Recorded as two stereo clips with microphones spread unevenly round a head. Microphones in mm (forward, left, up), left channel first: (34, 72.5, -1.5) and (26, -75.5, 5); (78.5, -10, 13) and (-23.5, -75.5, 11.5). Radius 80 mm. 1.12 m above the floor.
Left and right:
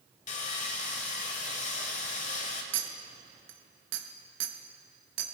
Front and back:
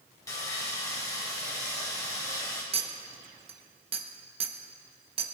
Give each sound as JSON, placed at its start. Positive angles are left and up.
{"t": 0.3, "sound": "sawing", "azimuth_deg": 90, "distance_m": 1.1}
{"t": 2.7, "sound": "a clink", "azimuth_deg": -105, "distance_m": 0.9}